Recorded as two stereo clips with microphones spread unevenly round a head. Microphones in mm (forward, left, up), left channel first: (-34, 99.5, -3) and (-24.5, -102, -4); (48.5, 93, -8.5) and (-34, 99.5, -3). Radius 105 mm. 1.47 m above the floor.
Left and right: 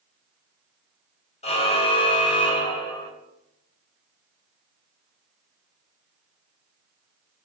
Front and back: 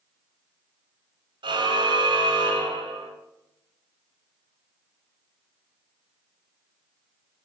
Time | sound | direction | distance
1.4 | a car horn | 155° left | 4.5 m